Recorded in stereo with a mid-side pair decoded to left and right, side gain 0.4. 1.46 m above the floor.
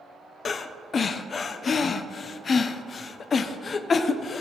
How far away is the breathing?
About 0.7 m.